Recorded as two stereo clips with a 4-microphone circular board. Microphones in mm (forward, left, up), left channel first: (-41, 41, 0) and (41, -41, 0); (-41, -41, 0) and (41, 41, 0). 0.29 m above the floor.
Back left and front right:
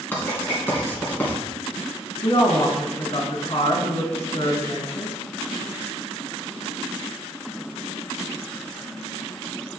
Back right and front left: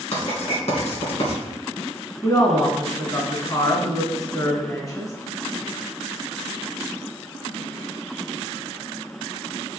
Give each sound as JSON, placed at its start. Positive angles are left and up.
{"t": 0.1, "sound": "writing", "azimuth_deg": -155, "distance_m": 2.5}
{"t": 2.2, "sound": "a woman speaking", "azimuth_deg": 170, "distance_m": 2.5}